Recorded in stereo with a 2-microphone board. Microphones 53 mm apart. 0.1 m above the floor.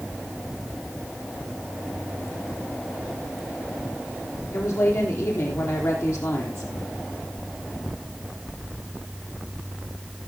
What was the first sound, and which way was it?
A woman speaking, 75° left (ahead or behind).